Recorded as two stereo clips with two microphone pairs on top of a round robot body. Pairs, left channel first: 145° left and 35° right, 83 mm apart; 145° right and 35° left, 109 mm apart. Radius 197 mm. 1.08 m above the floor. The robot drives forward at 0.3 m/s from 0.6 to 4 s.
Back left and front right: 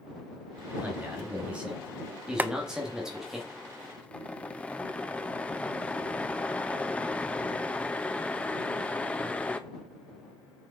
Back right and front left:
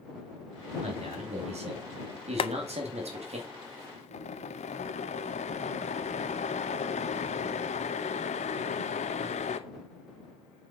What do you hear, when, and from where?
0.8 s a man speaking: 40° left, 3 m; by 3.4 s 50° left, 2.5 m
2.4 s boiling: 105° right, 0.5 m; by 9.6 s 140° right, 0.8 m